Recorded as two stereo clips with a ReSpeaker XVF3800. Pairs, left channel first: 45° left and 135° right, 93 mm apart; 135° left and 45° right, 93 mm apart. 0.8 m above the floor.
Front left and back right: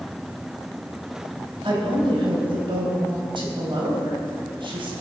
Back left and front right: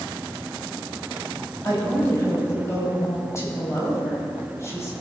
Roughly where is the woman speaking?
Behind.